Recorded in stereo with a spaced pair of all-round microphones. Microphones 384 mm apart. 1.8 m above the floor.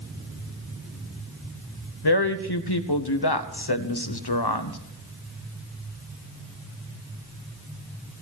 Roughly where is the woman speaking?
Left.